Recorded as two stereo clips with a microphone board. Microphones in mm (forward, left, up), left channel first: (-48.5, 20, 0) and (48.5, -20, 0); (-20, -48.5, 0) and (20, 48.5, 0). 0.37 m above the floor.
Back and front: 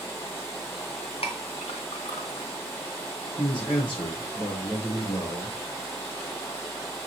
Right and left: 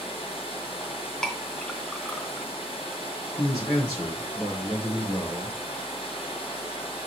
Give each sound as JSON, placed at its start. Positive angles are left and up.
{"t": 0.0, "sound": "running water", "azimuth_deg": -135, "distance_m": 3.0}
{"t": 1.2, "sound": "a clink", "azimuth_deg": 165, "distance_m": 2.5}
{"t": 3.4, "sound": "a man speaking", "azimuth_deg": -165, "distance_m": 4.0}